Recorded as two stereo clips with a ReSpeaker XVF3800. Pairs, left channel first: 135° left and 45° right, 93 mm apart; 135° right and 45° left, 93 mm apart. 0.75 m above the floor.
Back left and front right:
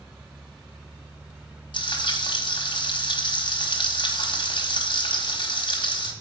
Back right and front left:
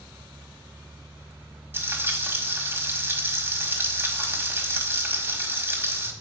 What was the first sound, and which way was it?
Frying, 110° left.